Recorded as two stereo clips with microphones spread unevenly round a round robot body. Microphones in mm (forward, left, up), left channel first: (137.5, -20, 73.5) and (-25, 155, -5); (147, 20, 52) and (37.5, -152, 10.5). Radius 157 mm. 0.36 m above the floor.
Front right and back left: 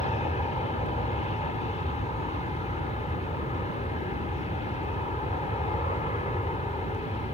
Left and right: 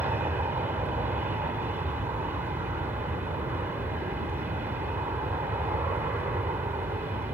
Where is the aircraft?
115° right.